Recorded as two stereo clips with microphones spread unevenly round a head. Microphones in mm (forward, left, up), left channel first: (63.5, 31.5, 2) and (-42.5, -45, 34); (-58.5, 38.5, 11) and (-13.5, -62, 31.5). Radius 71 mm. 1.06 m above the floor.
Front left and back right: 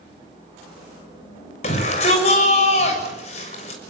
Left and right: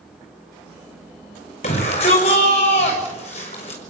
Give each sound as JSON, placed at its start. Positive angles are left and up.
{"t": 1.6, "sound": "a shout", "azimuth_deg": 75, "distance_m": 6.5}